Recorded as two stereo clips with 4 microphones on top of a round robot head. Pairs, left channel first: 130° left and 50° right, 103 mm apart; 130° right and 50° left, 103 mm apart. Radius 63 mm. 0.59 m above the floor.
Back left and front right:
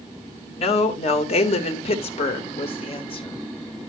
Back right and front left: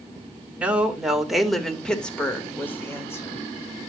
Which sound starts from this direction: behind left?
A woman speaking, at 0.6 s.